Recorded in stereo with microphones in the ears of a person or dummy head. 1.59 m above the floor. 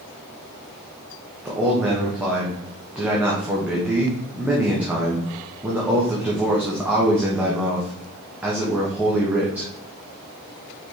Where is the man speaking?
5° right (ahead or behind), 1.4 m.